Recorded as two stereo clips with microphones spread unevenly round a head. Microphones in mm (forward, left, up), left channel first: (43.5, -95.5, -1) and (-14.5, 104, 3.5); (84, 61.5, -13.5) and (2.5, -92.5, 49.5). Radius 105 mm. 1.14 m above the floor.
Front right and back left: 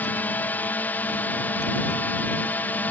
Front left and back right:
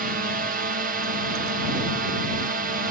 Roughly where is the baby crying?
I don't hear a baby crying.